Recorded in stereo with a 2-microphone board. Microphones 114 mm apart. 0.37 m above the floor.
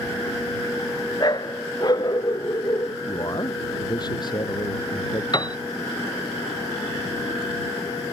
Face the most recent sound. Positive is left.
turn(degrees=40)  # may be behind; listen again after turning